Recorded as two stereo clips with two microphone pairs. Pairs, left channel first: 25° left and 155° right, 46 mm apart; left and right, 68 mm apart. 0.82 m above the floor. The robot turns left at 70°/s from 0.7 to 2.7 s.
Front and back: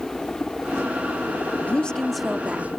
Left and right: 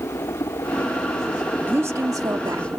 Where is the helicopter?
95° left; by 2.8 s 45° right.